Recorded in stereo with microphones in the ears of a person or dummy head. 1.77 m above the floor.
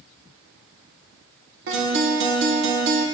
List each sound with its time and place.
1.7 s a guitar: 65° right (ahead or behind), 1.8 m